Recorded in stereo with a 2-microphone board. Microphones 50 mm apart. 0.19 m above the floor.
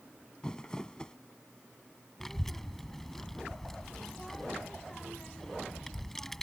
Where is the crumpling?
15° left (ahead or behind).